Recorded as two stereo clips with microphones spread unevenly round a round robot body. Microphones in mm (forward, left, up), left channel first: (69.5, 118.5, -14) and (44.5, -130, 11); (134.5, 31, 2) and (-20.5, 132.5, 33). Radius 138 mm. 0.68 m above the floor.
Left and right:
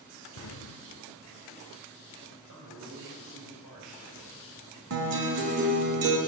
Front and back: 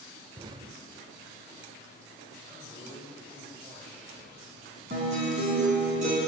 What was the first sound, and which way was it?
An explosion, 90° left.